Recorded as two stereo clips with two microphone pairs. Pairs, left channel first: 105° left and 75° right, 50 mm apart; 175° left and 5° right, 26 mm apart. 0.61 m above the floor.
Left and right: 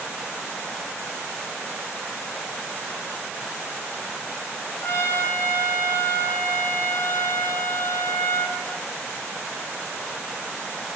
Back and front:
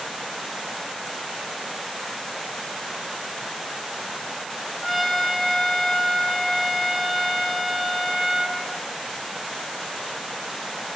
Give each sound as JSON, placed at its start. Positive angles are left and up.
{"t": 4.8, "sound": "a trumpet", "azimuth_deg": 80, "distance_m": 5.5}